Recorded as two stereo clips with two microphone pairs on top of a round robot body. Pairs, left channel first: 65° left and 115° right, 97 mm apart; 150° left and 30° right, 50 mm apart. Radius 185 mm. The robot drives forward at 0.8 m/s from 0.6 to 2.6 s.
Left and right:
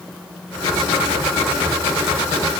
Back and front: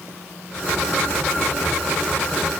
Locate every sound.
Only background noise.